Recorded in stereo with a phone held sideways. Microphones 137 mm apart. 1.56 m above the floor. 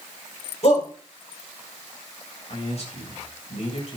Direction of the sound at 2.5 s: 50° left (ahead or behind).